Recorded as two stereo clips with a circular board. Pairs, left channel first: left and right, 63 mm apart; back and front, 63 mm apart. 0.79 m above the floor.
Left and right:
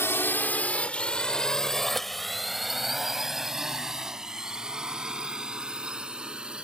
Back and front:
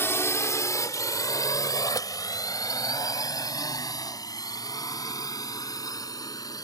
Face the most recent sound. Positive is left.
turn(degrees=-165)